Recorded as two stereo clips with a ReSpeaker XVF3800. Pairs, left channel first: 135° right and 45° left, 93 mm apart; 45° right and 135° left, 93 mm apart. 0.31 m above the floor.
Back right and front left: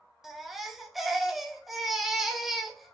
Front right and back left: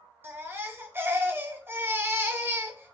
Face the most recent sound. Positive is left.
turn(degrees=130)